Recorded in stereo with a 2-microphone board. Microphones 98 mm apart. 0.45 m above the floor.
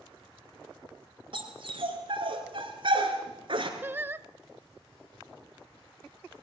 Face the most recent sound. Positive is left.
turn(degrees=-20)  # may be behind; listen again after turning